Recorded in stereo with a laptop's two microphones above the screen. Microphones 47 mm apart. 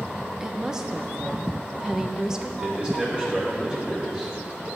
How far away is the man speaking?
About 3.5 m.